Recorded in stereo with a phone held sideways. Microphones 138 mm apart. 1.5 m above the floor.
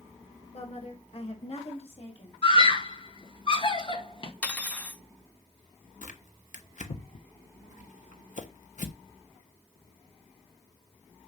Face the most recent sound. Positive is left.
turn(degrees=65)  # may be behind; listen again after turning